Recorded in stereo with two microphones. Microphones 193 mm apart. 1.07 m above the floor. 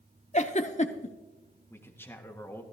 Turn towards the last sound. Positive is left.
turn(degrees=10)  # may be behind; listen again after turning